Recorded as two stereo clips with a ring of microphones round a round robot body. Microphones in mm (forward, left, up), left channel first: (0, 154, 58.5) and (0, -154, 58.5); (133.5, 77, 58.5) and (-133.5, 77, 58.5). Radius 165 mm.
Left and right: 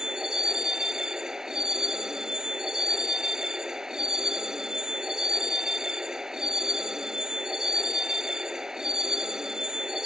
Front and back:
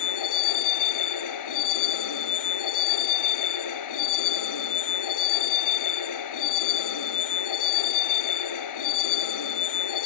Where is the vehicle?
Straight ahead.